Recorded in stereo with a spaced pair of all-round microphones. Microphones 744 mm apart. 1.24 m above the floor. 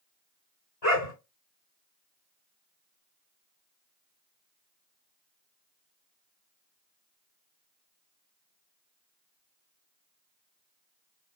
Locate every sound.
0.8 s a dog barking: 50° left (ahead or behind), 2 m